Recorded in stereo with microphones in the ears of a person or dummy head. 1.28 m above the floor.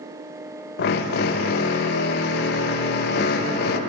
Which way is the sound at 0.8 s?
60° left (ahead or behind).